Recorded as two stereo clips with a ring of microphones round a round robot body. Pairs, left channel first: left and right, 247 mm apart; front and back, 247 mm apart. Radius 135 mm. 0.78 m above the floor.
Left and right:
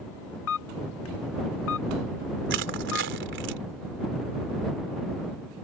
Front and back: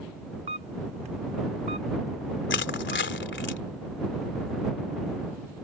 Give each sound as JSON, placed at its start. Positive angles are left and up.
{"t": 0.5, "sound": "a camera shutter", "azimuth_deg": 115}
{"t": 2.5, "sound": "crushing", "azimuth_deg": -45}